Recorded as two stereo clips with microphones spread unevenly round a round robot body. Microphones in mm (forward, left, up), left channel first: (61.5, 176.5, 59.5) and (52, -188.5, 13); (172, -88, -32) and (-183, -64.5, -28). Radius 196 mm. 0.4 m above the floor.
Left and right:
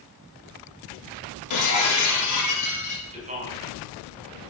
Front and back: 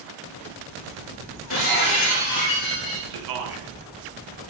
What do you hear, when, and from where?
1.5 s breaking glass: 50° left, 6 m
3.1 s a man speaking: 160° right, 4 m